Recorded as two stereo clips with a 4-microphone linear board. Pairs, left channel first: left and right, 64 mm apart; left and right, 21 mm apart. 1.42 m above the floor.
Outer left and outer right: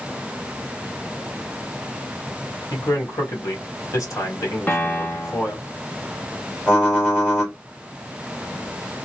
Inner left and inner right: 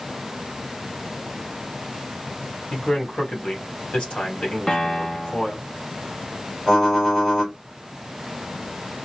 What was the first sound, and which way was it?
A man speaking, 55° left (ahead or behind).